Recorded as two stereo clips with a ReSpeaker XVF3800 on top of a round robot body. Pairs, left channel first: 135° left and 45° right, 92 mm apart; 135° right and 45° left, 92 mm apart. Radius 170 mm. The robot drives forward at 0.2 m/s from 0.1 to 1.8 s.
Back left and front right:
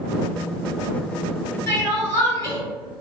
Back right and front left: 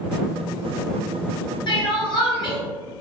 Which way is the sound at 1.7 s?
160° right.